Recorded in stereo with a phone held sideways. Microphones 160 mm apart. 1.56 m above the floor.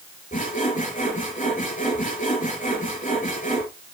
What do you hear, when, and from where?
0.3 s sawing: 60° left (ahead or behind), 5.5 m